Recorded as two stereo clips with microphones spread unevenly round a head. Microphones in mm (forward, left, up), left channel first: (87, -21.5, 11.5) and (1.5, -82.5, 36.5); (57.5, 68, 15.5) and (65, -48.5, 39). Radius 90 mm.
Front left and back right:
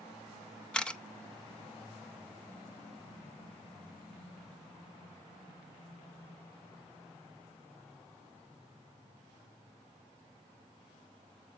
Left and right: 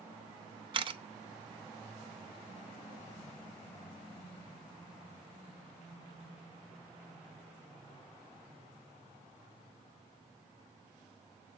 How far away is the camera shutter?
About 0.9 m.